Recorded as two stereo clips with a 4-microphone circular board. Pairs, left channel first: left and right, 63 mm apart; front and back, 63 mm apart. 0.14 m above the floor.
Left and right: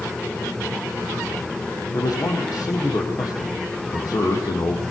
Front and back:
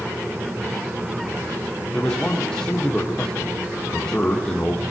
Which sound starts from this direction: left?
A man speaking, at 1.9 s.